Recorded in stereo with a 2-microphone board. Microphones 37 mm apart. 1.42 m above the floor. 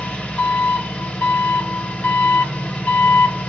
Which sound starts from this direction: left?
An engine running, at 0.0 s.